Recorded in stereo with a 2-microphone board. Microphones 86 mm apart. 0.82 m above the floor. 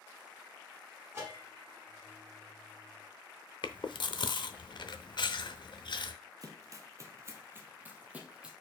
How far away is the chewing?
About 0.8 m.